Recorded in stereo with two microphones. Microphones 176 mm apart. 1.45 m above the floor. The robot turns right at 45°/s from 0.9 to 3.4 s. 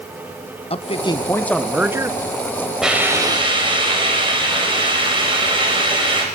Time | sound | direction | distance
0.7 | a man speaking | 145° left | 1.2 m
2.8 | a hiss | centre (ahead or behind) | 4.5 m